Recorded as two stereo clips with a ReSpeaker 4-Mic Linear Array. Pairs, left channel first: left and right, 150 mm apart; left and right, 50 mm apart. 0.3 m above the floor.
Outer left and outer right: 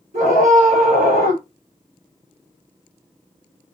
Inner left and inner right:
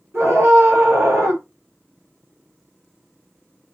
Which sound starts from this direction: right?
A scream, at 0.1 s.